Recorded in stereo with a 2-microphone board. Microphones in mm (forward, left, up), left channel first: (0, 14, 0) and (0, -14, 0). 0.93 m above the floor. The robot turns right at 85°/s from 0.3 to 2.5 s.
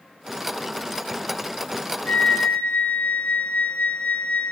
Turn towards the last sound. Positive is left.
turn(degrees=115)